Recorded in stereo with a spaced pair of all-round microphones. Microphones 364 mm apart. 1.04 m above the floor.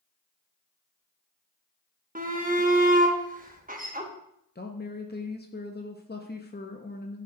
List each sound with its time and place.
2.1 s a shout: 20° right (ahead or behind), 1.0 m
4.5 s a woman speaking: 25° left (ahead or behind), 0.6 m